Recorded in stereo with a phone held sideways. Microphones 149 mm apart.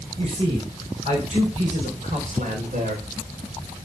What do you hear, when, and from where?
0.2 s a man speaking: 45° right (ahead or behind), 5 m; by 3.1 s 65° right (ahead or behind), 4 m